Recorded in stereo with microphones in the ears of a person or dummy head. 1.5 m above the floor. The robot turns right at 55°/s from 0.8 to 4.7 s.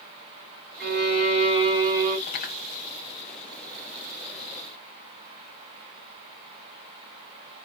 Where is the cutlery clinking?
45° left (ahead or behind), 0.8 m; by 2.6 s 35° left (ahead or behind), 0.8 m.